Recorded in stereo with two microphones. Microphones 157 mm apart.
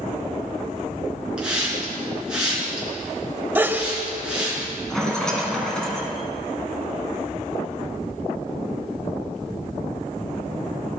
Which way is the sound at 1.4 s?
5° right (ahead or behind).